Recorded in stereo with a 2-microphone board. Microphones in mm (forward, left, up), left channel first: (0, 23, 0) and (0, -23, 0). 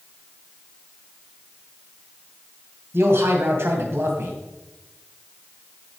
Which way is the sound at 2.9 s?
60° right (ahead or behind).